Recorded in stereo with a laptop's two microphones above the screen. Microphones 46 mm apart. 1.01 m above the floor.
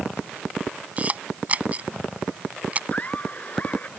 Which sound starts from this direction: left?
Laughter, at 2.9 s.